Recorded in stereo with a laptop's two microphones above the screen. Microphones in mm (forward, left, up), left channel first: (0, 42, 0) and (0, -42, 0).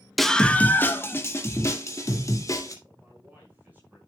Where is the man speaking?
20° right (ahead or behind), 6 m.